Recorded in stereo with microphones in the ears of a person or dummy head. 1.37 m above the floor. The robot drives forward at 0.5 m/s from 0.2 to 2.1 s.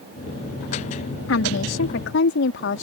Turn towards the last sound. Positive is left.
turn(degrees=65)  # may be behind; listen again after turning